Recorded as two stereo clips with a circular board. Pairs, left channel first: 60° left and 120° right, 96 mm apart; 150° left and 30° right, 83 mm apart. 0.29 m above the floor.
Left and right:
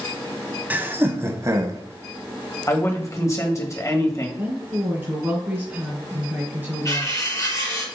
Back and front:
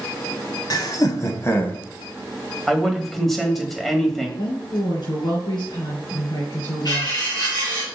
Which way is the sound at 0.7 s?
170° left.